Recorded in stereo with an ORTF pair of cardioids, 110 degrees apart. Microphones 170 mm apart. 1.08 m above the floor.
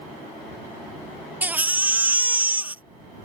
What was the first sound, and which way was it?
A baby crying, 10° right.